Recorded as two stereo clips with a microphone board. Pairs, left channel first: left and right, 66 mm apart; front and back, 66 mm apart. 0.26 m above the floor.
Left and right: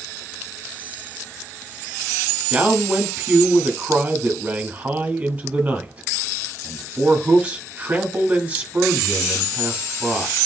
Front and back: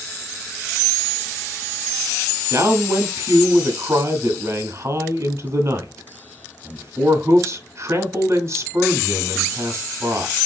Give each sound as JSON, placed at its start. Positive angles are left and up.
{"t": 2.5, "sound": "a man speaking", "azimuth_deg": -155, "distance_m": 1.8}